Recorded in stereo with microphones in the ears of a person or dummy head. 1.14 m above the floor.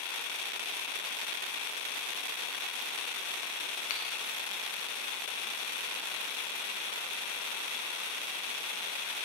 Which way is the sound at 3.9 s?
40° left (ahead or behind).